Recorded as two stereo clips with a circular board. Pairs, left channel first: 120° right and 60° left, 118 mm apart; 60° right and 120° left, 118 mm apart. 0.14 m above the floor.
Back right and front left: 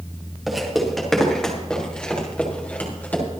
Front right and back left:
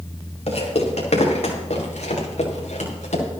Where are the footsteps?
30° right, 4.5 m; by 3.2 s 45° right, 5 m.